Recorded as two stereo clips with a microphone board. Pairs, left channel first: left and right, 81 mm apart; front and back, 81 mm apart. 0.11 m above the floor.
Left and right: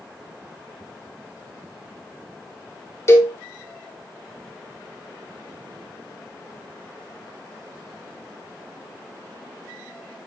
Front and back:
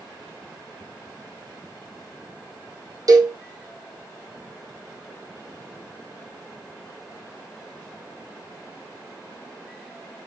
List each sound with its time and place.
3.1 s a cowbell: 145° left, 1.9 m